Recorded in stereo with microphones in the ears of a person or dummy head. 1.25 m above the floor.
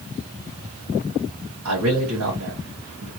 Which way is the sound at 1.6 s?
80° right.